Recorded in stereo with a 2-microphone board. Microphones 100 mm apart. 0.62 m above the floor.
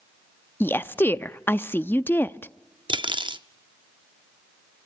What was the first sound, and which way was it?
A woman speaking, 25° left (ahead or behind).